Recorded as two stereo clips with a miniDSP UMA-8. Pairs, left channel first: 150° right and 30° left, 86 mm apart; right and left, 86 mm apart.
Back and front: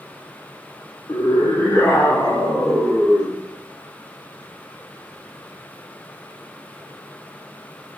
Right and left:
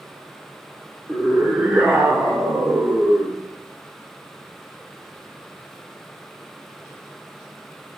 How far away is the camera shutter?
No camera shutter in this recording.